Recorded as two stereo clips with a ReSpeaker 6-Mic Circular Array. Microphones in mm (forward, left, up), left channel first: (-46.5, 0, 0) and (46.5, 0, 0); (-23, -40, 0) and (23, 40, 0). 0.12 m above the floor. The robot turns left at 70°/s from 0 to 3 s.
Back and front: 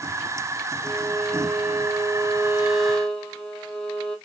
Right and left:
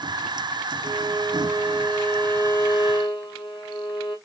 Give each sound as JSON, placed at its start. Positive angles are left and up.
{"t": 0.8, "sound": "a violin", "azimuth_deg": 50, "distance_m": 1.1}